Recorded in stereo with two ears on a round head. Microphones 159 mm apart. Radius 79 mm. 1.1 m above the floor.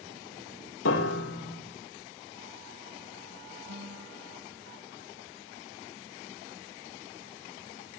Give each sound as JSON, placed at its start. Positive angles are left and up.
{"t": 0.8, "sound": "a piano", "side_deg": 80, "distance_m": 2.0}
{"t": 3.7, "sound": "a guitar", "side_deg": -80, "distance_m": 6.0}